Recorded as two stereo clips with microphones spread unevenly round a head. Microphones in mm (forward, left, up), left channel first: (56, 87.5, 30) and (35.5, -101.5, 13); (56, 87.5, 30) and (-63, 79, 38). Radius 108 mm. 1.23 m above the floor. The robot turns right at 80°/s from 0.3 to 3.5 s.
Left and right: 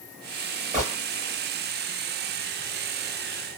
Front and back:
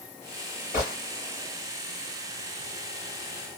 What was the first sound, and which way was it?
A gunshot, 45° right.